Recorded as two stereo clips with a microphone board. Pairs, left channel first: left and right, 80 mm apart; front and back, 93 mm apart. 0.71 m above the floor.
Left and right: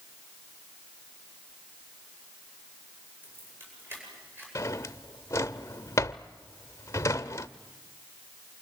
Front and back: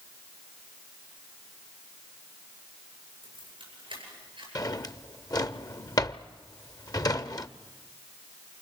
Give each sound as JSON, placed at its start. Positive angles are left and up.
{"t": 3.2, "sound": "keys jangling", "azimuth_deg": -150, "distance_m": 9.0}
{"t": 4.5, "sound": "a drawer", "azimuth_deg": 40, "distance_m": 0.6}